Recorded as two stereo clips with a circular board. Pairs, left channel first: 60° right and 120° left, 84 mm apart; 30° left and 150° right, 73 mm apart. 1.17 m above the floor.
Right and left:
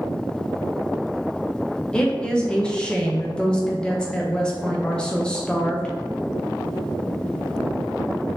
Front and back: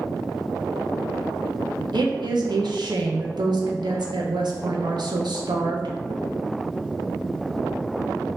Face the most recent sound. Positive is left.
turn(degrees=-140)